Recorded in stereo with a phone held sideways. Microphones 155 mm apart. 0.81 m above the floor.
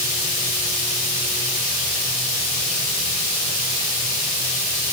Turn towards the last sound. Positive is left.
No sound to turn to.